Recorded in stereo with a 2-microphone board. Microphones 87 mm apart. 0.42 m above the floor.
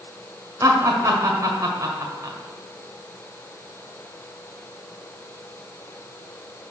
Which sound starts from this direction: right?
Laughter, at 0.6 s.